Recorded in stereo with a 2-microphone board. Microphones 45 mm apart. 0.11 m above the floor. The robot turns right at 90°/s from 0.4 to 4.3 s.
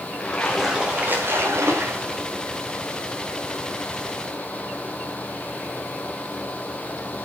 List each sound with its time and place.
0.2 s a splash: 165° left, 4.5 m; by 2.2 s 30° right, 4.5 m